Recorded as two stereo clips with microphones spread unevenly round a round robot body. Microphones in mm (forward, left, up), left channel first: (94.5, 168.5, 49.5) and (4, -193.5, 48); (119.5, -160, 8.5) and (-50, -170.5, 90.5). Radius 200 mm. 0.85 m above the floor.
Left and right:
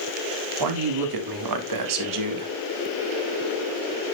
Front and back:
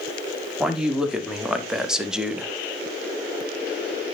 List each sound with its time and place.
0.6 s a man speaking: 80° right, 3 m; by 2.5 s 75° right, 1.8 m